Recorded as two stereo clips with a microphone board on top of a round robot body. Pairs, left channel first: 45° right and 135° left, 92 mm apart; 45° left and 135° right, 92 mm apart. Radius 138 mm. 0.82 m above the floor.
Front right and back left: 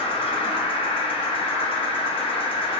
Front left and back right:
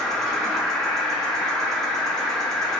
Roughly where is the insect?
Ahead right.